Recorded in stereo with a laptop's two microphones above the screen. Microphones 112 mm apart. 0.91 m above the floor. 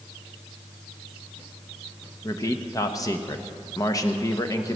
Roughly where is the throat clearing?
I don't hear throat clearing.